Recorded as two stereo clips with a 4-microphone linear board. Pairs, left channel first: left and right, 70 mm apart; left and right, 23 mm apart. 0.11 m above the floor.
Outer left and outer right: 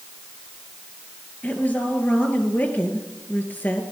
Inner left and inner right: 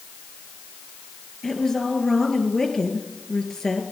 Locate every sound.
1.4 s a woman speaking: 25° left (ahead or behind), 2 m